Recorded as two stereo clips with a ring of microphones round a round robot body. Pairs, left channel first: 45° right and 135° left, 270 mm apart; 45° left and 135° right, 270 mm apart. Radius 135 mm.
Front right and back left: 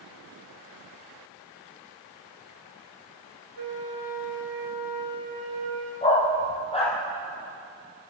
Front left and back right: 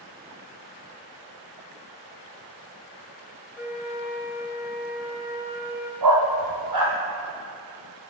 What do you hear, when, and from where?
3.6 s a flute: 145° left, 5.5 m
6.0 s a dog barking: 115° right, 4.5 m